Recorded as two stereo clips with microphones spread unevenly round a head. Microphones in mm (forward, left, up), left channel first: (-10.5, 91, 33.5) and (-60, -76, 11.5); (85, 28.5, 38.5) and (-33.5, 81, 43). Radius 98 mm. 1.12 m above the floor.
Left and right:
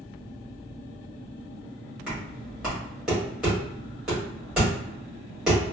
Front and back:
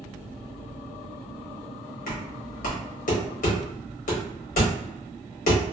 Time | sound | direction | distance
2.1 | knocking | 20° right | 1.4 m